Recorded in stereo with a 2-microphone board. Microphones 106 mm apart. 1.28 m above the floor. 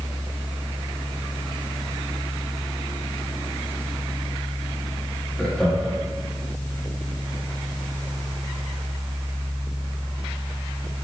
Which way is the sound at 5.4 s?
5° left (ahead or behind).